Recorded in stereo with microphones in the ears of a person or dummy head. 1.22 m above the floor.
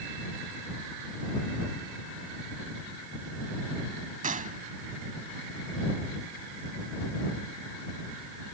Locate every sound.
4.2 s a gunshot: 40° right (ahead or behind)